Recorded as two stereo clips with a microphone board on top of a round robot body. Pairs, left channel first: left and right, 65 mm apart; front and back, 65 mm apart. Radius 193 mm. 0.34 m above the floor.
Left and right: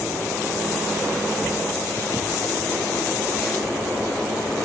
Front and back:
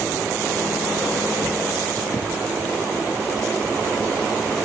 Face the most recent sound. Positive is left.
No sound to turn to.